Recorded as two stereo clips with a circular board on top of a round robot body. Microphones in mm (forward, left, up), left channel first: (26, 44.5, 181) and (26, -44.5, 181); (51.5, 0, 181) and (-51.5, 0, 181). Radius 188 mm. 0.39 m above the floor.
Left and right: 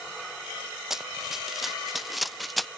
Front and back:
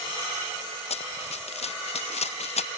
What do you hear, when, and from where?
0.9 s running footsteps: 5° right; by 2.7 s straight ahead